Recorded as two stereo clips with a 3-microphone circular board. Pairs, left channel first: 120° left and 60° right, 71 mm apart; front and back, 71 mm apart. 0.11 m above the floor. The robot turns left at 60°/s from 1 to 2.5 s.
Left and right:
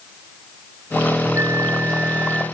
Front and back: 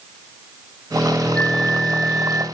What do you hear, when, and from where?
1.4 s a flute: 60° right, 0.7 m; by 2.5 s 125° right, 0.7 m